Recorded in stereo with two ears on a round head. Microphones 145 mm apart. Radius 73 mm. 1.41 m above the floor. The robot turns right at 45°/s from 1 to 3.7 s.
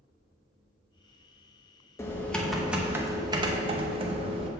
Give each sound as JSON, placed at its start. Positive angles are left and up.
{"t": 2.0, "sound": "typing on a keyboard", "azimuth_deg": 155, "distance_m": 0.7}